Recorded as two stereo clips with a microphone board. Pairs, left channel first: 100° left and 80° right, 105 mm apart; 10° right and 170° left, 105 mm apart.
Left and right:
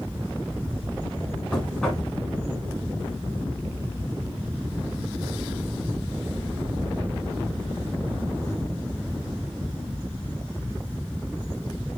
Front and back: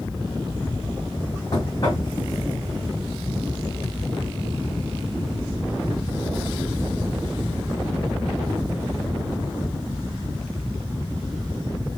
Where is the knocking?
25° left, 1.3 m.